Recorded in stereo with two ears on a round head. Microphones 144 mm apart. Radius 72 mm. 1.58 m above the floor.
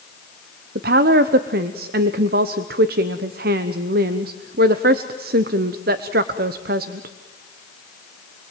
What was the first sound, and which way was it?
A woman speaking, 65° right (ahead or behind).